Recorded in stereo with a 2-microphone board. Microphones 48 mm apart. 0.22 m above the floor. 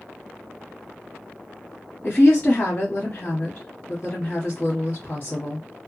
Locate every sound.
2.0 s a woman speaking: 30° left (ahead or behind), 1.2 m